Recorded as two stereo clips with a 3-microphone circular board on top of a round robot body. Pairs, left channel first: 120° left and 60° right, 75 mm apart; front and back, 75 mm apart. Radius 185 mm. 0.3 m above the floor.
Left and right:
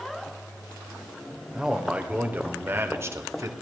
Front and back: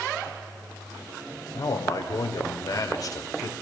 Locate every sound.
1.5 s a man speaking: 20° left, 2 m; by 3.5 s 30° right, 1.8 m